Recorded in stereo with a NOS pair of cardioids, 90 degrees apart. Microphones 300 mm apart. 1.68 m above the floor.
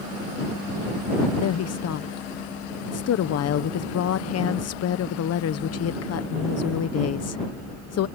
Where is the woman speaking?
55° left.